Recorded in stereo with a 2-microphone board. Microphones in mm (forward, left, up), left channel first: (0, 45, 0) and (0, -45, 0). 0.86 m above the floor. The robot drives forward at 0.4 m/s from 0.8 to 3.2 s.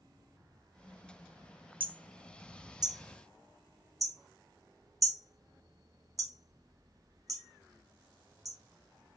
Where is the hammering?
70° right (ahead or behind), 0.6 m; by 8.6 s 40° right (ahead or behind), 0.9 m.